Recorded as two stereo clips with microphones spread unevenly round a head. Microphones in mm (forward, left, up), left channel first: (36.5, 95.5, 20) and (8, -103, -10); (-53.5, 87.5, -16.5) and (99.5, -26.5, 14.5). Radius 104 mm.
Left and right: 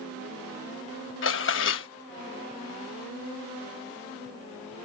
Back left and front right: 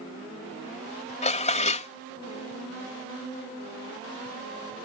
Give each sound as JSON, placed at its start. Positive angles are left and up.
{"t": 1.2, "sound": "dishes clattering", "azimuth_deg": 85}